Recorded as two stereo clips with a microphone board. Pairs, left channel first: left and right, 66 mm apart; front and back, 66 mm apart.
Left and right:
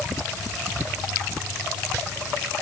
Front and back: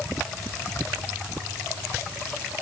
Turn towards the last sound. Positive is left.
No sound to turn to.